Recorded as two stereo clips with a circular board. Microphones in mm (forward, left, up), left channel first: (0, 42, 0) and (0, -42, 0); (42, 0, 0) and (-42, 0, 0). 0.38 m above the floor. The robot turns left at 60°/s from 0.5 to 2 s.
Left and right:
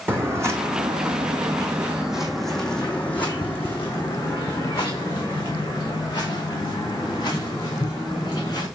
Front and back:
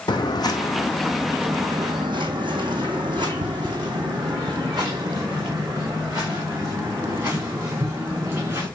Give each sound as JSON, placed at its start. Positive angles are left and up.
{"t": 0.1, "sound": "footsteps", "azimuth_deg": -25, "distance_m": 1.3}